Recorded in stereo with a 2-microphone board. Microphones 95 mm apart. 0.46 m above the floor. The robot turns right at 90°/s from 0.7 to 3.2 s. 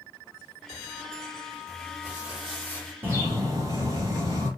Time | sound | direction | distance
1.7 | crumpling | 65° right | 1.9 m
3.0 | a bird | 20° right (ahead or behind) | 1.8 m